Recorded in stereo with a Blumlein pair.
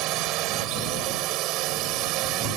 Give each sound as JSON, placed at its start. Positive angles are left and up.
{"t": 0.0, "sound": "a drone", "azimuth_deg": -40}